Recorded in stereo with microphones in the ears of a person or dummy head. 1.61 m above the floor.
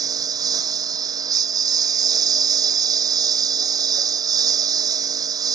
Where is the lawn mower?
20° right (ahead or behind).